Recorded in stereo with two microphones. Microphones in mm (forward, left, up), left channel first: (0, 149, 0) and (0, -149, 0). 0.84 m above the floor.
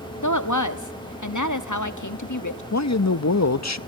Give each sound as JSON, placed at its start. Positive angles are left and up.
{"t": 0.2, "sound": "a woman speaking", "side_deg": 70, "distance_m": 1.2}
{"t": 2.7, "sound": "a man speaking", "side_deg": 55, "distance_m": 0.6}